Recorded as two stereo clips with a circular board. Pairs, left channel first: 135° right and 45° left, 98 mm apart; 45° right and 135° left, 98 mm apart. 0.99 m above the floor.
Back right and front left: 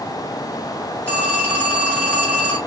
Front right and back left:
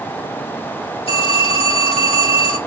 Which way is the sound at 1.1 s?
60° right.